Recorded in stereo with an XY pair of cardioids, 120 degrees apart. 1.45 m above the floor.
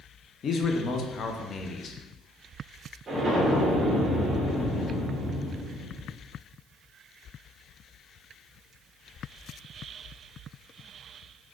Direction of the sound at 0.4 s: 45° left.